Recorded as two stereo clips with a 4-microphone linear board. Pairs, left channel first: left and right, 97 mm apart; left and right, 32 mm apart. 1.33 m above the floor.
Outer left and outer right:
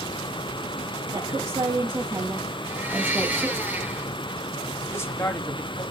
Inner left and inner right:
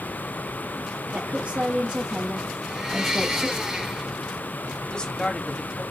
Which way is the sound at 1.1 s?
60° right (ahead or behind).